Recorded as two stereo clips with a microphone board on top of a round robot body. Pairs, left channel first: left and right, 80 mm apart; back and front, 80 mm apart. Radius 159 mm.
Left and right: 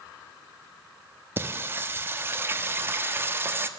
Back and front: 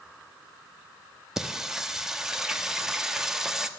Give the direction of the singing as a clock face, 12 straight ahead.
3 o'clock.